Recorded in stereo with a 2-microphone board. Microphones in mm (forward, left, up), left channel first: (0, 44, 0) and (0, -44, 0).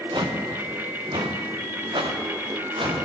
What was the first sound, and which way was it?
Footsteps, 60° right (ahead or behind).